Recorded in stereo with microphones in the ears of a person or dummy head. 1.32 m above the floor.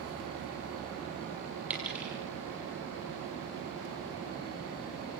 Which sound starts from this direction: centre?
A dropped coin, at 1.7 s.